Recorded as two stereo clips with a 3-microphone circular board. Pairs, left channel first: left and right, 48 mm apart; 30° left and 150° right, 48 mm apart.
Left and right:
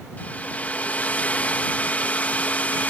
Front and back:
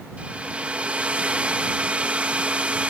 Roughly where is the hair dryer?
Behind left.